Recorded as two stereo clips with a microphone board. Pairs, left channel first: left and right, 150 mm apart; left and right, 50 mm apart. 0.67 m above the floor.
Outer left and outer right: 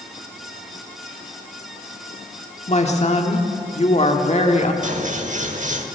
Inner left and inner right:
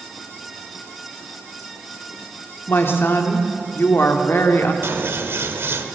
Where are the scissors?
55° right (ahead or behind), 1.1 m.